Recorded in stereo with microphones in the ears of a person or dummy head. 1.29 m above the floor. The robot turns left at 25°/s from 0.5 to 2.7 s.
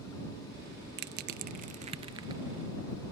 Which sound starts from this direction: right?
Crushing, at 1.0 s.